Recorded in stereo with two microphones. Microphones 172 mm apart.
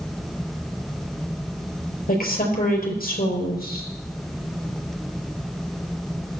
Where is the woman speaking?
55° left (ahead or behind), 4.5 m.